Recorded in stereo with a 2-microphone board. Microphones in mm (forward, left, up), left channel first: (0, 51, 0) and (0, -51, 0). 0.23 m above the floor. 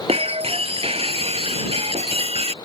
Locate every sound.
0.1 s breaking glass: 75° right (ahead or behind)